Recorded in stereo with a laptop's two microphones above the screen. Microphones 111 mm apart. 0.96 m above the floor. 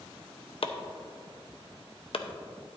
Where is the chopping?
60° left (ahead or behind), 0.6 m.